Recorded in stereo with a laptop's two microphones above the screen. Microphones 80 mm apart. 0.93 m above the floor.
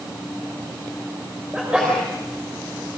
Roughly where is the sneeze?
Centre.